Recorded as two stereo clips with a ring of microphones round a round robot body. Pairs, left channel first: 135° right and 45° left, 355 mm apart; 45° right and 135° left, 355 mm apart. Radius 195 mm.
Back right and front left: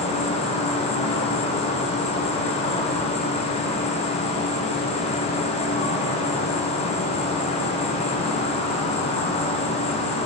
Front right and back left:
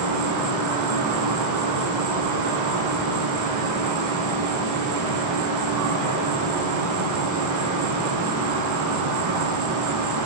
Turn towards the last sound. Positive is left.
turn(degrees=155)